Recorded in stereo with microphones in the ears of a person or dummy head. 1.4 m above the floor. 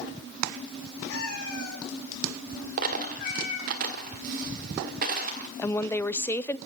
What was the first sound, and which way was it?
A cat meowing, 75° left (ahead or behind).